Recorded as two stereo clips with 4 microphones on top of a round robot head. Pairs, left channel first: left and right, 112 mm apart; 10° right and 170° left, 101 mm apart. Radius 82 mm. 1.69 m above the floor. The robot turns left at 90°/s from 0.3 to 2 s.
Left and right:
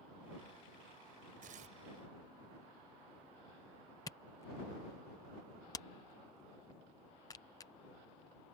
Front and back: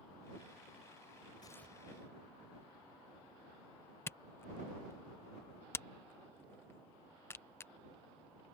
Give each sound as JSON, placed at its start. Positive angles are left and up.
{"t": 1.4, "sound": "tearing paper", "azimuth_deg": -70}
{"t": 4.1, "sound": "a camera shutter", "azimuth_deg": 35}